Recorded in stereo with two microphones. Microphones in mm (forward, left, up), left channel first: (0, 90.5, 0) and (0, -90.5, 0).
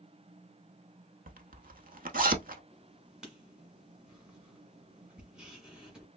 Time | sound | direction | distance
1.3 | a zipper | 50° right (ahead or behind) | 0.7 m
2.7 | writing | 5° right (ahead or behind) | 1.4 m